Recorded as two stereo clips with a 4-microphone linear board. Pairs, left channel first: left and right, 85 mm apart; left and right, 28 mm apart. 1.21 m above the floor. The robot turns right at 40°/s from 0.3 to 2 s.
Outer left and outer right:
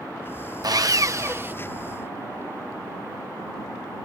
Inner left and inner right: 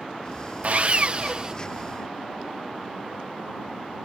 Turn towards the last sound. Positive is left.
turn(degrees=-15)